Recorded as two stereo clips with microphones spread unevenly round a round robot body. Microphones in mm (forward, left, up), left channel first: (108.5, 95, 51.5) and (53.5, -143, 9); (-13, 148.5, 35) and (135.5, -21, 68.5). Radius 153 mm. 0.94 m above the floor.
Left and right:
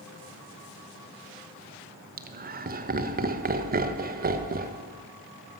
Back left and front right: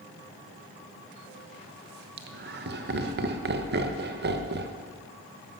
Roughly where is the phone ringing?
I don't hear a phone ringing.